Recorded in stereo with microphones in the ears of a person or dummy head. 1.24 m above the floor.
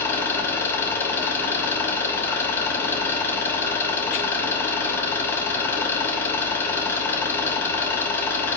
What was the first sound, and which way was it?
An engine running, 15° left (ahead or behind).